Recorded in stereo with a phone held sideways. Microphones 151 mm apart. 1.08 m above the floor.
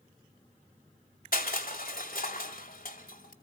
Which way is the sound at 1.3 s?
70° left (ahead or behind).